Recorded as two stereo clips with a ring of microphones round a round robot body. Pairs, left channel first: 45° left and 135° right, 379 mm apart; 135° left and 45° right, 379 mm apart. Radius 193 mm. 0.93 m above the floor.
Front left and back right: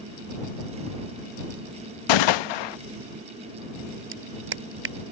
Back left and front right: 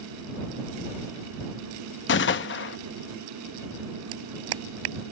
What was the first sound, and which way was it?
A gunshot, 70° left.